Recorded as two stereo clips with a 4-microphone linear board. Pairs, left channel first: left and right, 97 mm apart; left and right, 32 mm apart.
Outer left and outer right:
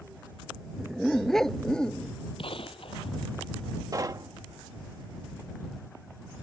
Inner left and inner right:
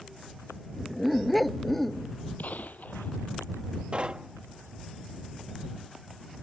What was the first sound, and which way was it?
A dog barking, centre (ahead or behind).